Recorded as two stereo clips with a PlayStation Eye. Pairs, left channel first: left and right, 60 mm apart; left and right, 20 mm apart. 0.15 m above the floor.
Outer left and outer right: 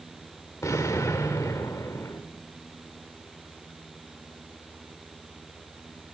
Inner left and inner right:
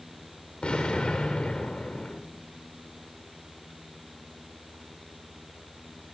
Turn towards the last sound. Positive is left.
turn(degrees=45)  # may be behind; listen again after turning